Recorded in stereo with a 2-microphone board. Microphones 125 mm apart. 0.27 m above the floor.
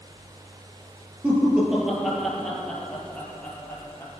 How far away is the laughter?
About 5 m.